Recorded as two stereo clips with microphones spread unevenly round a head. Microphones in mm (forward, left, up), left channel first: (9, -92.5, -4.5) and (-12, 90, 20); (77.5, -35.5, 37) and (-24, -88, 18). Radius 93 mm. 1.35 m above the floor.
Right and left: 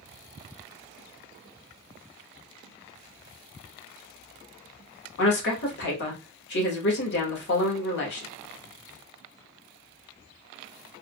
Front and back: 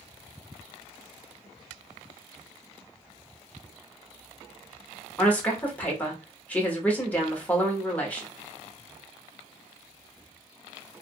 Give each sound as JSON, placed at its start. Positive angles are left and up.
{"t": 5.2, "sound": "a woman speaking", "azimuth_deg": -50, "distance_m": 1.4}